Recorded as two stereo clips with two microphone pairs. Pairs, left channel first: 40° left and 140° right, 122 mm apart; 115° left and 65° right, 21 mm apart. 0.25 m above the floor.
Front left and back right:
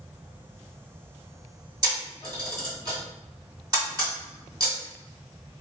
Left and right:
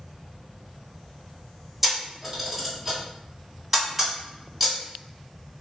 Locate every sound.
1.8 s a camera shutter: 145° right, 1.7 m